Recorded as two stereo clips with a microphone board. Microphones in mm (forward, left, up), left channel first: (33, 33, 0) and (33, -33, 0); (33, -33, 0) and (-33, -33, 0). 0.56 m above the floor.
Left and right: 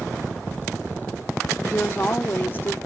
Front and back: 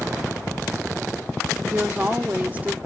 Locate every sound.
1.7 s a woman speaking: 130° left, 1.1 m